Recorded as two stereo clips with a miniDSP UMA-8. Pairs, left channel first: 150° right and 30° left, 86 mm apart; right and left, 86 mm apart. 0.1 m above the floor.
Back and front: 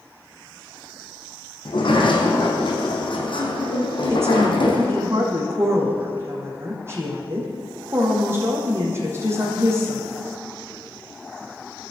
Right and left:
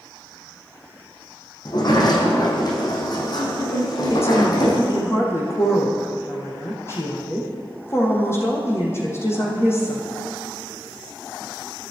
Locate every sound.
1.6 s a sliding door: 125° right, 3.5 m
4.1 s a woman speaking: 30° right, 4 m